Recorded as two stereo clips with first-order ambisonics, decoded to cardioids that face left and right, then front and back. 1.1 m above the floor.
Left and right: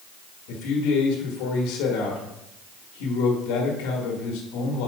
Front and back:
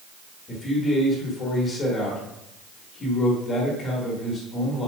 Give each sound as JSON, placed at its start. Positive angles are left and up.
{"t": 0.5, "sound": "a man speaking", "azimuth_deg": 70, "distance_m": 1.3}